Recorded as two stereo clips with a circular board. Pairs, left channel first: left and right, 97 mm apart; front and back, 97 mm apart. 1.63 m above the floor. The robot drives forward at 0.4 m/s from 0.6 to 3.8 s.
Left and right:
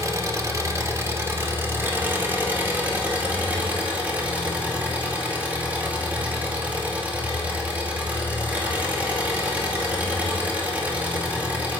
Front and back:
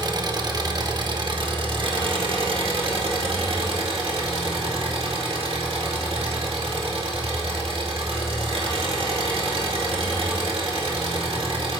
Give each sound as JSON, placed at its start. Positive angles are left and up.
{"t": 0.0, "sound": "an engine running", "azimuth_deg": -140, "distance_m": 1.2}